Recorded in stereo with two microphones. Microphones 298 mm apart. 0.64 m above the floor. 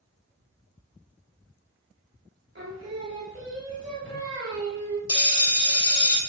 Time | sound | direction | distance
2.5 | singing | 40° right (ahead or behind) | 1.6 m
5.1 | a bell | 15° left (ahead or behind) | 0.9 m